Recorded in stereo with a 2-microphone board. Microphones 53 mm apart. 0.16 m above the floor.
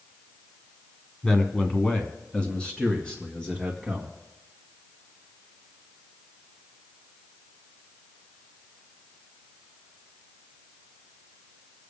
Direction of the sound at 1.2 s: 20° left (ahead or behind).